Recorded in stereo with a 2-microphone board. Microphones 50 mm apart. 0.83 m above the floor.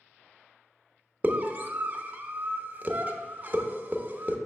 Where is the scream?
35° right (ahead or behind), 0.8 m.